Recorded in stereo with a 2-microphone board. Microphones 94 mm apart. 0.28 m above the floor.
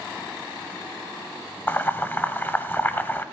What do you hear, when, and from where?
1.7 s boiling: 25° left (ahead or behind), 0.8 m